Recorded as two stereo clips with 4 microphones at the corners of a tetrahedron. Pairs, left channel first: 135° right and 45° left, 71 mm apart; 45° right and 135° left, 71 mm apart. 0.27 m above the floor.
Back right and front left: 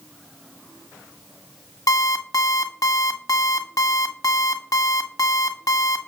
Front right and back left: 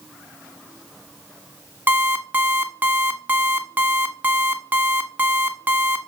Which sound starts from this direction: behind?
An alarm clock, at 1.9 s.